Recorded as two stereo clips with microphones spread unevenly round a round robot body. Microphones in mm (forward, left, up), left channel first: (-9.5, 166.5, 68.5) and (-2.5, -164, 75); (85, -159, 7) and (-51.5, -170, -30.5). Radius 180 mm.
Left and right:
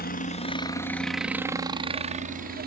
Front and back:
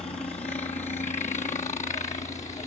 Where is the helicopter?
55° left; by 2.7 s 30° right.